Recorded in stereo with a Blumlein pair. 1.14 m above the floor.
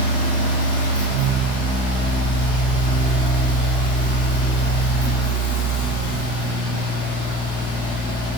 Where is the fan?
65° left, 1.3 m.